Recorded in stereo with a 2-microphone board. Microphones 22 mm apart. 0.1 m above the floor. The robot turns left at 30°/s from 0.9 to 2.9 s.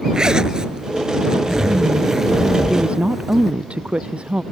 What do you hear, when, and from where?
0.1 s a zipper: 110° right; by 3.5 s 170° right
2.7 s a woman speaking: 65° right (ahead or behind); by 4.4 s 60° right (ahead or behind)